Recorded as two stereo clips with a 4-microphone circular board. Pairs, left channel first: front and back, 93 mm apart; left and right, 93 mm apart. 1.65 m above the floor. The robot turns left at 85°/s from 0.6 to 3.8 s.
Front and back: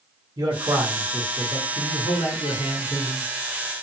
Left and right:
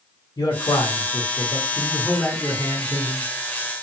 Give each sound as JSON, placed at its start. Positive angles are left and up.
{"t": 0.4, "sound": "a man speaking", "azimuth_deg": 135, "distance_m": 0.7}